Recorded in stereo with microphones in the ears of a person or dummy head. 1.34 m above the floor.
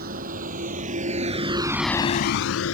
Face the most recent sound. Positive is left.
turn(degrees=80)